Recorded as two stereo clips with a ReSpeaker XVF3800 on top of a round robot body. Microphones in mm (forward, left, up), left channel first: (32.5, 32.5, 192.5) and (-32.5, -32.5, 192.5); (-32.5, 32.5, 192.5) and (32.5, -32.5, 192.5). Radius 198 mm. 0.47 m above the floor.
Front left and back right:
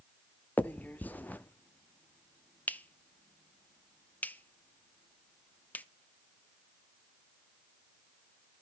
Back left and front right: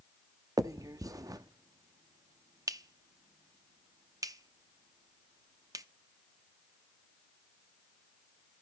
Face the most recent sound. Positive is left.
turn(degrees=-20)